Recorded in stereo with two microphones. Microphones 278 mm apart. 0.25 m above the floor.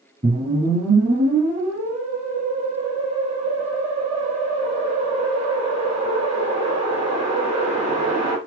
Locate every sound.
0.2 s a whoosh: 25° right (ahead or behind), 2.5 m